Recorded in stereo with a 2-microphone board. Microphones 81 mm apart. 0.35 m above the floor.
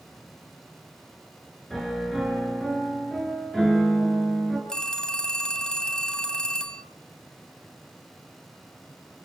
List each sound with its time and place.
1.7 s a piano: 5° left (ahead or behind), 6 m
4.7 s a phone ringing: 10° left (ahead or behind), 1.8 m